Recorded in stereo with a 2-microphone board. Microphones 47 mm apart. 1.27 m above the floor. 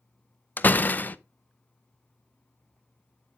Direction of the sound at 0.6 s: 40° left (ahead or behind).